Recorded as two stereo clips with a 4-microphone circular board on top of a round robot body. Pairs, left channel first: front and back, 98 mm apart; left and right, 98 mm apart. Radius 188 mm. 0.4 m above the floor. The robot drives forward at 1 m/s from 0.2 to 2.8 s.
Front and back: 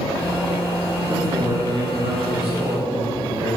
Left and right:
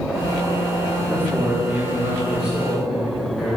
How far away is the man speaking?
About 0.9 m.